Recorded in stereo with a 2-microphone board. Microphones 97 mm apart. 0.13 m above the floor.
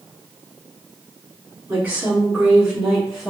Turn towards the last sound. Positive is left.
turn(degrees=5)  # may be behind; listen again after turning